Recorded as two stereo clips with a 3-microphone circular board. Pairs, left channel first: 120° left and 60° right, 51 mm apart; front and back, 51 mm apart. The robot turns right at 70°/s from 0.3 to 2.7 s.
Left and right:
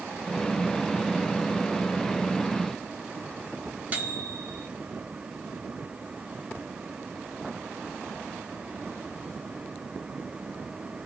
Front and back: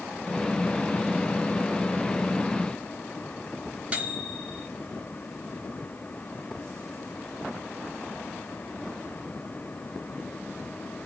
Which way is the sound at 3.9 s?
115° right.